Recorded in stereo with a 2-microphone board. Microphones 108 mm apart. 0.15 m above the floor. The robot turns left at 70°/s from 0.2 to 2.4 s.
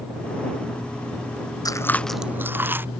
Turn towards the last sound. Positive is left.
turn(degrees=-20)